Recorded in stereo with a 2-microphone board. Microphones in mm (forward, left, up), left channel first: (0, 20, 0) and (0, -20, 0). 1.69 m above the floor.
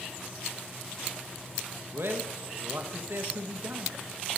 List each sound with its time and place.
1.9 s a man speaking: 65° right (ahead or behind), 1.6 m